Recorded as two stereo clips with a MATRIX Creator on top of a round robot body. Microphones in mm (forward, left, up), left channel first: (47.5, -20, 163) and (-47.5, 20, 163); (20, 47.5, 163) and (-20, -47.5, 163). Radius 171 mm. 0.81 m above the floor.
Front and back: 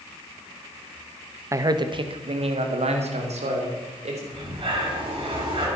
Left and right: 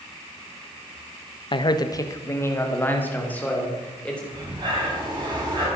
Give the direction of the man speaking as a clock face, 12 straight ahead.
9 o'clock.